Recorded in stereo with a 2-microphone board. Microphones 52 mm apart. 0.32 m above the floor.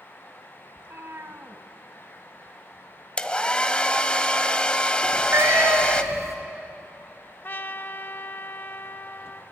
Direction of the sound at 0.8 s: 55° right (ahead or behind).